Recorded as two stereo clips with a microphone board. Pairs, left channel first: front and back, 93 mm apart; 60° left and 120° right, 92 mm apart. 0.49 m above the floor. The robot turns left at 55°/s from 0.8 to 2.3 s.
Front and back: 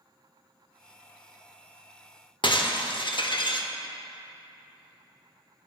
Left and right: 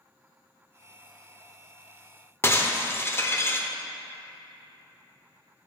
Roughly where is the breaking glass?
Ahead.